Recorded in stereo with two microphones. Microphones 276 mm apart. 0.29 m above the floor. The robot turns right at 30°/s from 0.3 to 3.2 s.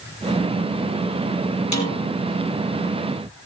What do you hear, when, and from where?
1.7 s a snare drum: 75° left (ahead or behind), 4 m; by 2.0 s 70° left (ahead or behind), 4 m